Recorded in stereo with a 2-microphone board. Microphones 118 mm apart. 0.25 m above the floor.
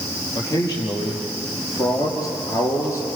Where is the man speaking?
35° left (ahead or behind), 7 m; by 3.1 s 25° left (ahead or behind), 5 m.